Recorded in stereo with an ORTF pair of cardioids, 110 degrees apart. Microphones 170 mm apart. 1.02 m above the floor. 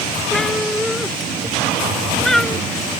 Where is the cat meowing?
5° left.